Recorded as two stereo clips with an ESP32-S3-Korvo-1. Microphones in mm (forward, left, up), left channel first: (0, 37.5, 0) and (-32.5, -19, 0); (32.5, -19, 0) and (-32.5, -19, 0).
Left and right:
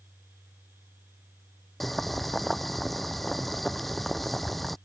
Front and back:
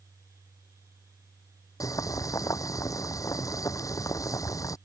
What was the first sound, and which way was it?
Boiling, 30° right.